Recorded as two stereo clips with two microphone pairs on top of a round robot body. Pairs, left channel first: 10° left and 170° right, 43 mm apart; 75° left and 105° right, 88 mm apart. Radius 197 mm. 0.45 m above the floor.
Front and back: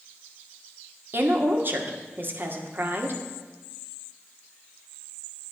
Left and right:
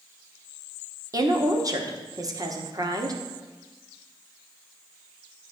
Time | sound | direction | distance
1.1 | a woman speaking | 140° right | 2 m